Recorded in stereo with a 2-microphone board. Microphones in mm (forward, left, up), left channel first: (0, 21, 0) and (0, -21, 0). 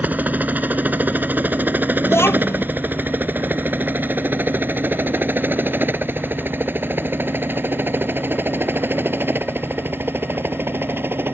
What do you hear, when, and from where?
0.0 s a helicopter: 40° right (ahead or behind); by 11.3 s 55° right (ahead or behind)
2.0 s a child speaking: 75° left (ahead or behind)